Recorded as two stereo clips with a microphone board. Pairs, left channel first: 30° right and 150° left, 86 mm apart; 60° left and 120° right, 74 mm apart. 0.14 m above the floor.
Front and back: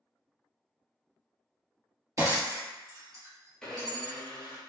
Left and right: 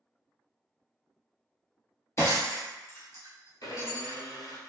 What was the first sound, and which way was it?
Breaking glass, 105° left.